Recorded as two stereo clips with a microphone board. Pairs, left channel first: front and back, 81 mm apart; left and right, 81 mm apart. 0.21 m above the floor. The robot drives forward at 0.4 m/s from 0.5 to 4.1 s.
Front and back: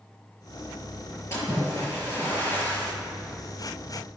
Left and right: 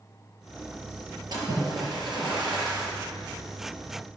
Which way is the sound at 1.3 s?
60° right.